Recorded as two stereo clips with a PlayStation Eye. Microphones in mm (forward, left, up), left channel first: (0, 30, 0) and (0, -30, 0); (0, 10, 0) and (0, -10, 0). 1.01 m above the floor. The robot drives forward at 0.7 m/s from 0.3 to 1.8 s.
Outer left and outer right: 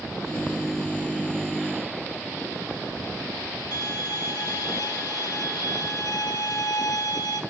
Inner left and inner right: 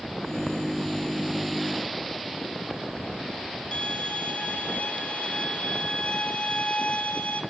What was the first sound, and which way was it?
A violin, 80° left.